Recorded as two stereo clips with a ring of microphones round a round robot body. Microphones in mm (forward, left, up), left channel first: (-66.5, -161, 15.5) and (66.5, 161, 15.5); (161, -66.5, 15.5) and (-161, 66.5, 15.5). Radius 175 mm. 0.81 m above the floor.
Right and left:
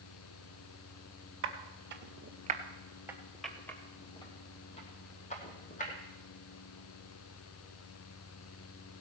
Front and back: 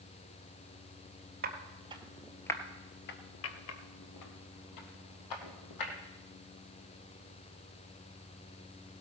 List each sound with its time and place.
1.4 s footsteps: 105° left, 1.0 m; by 5.9 s 45° right, 2 m